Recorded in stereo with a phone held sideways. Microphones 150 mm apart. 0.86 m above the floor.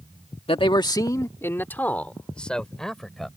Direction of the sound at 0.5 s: 40° left (ahead or behind).